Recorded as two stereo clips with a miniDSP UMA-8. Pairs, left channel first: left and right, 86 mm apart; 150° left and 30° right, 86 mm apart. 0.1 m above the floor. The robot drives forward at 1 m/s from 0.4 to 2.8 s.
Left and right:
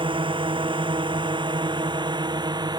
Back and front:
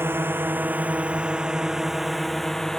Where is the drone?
95° right; by 2.8 s 125° right.